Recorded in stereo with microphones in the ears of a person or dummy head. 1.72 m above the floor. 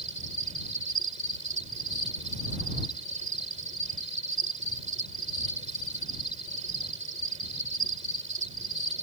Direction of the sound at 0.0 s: 35° right (ahead or behind).